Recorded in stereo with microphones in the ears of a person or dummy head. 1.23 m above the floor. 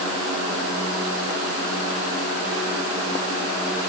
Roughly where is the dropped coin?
No dropped coin in this recording.